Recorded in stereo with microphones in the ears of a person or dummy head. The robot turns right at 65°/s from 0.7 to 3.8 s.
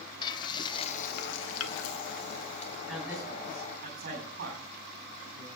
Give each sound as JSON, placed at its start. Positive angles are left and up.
{"t": 0.2, "sound": "frying", "azimuth_deg": 25, "distance_m": 1.1}
{"t": 2.9, "sound": "a man speaking", "side_deg": 5, "distance_m": 10.0}